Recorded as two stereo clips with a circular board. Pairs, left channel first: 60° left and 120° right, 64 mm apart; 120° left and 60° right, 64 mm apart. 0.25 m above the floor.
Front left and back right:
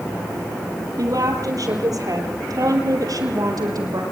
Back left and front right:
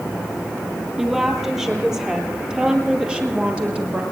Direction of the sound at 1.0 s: 145° right.